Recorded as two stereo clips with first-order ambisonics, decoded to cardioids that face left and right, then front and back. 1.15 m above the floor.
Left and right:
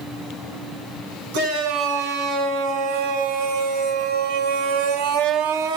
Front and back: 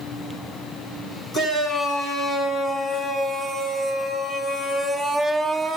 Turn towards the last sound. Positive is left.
turn(degrees=-90)